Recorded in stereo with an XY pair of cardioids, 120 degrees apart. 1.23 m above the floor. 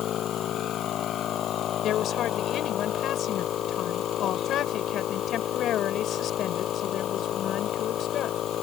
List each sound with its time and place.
0.0 s a machine running: 55° left
1.8 s a woman speaking: 60° left